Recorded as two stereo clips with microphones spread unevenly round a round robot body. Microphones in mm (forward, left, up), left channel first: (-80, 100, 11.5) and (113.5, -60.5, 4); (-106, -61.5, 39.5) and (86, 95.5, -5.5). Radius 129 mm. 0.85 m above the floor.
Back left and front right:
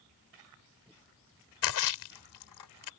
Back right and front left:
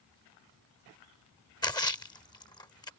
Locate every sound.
1.6 s a splash: 145° left